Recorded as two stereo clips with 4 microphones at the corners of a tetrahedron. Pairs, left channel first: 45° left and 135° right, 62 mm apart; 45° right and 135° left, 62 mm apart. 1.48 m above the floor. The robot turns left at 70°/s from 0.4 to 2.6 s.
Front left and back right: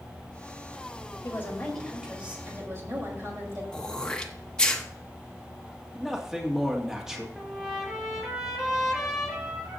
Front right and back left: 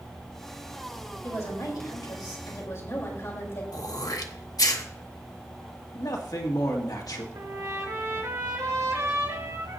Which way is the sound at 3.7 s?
30° right.